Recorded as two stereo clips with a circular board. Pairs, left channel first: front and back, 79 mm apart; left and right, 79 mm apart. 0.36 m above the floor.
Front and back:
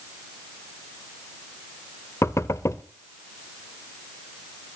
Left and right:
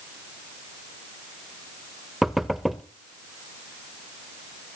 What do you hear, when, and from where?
2.2 s knocking: straight ahead, 0.9 m